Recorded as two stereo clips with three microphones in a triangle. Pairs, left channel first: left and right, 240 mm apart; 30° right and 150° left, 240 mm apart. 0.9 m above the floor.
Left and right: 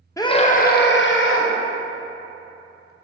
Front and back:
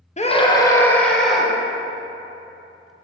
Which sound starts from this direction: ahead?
A scream, at 0.2 s.